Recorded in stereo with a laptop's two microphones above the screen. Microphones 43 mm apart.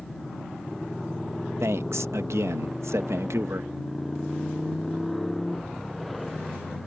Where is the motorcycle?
5° left (ahead or behind).